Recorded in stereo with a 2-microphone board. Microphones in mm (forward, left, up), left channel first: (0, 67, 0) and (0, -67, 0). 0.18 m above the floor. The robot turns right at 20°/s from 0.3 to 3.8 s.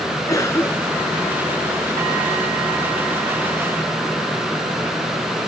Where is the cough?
25° left (ahead or behind); by 1.2 s 10° left (ahead or behind).